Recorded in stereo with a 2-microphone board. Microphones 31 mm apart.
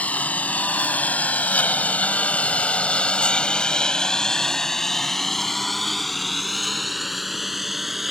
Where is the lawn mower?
55° left (ahead or behind); by 8.1 s 5° right (ahead or behind).